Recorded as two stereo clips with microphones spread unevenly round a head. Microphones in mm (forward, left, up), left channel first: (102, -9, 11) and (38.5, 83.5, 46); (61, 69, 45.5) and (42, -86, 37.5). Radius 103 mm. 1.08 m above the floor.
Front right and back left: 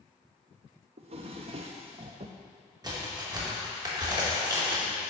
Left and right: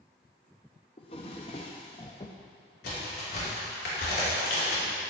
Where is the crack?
70° left, 3 m.